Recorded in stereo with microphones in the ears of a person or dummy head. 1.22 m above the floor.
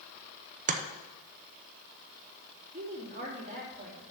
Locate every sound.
0.7 s chopping: 40° right (ahead or behind), 0.7 m
2.7 s a woman speaking: 35° right (ahead or behind), 2.5 m